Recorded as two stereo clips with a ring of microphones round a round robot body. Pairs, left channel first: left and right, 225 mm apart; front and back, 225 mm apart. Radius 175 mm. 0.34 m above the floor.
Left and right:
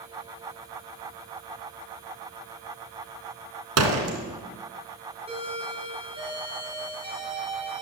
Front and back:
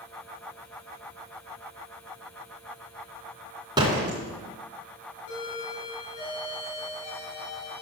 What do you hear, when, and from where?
3.8 s a door slam: 105° right, 3 m
5.3 s a doorbell: 25° right, 7.5 m